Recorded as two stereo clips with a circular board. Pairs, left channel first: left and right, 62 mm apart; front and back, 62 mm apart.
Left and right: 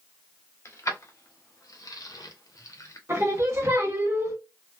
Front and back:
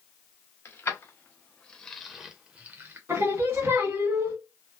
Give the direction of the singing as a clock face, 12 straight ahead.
4 o'clock.